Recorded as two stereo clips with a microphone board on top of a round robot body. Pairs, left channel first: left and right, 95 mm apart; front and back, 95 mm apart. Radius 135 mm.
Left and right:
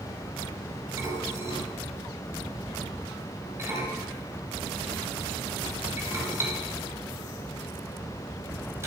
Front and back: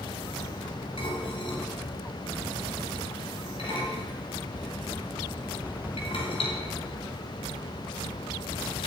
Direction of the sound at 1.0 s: 30° right.